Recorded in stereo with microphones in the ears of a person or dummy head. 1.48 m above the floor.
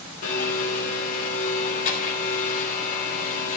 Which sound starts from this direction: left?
A blender, at 0.2 s.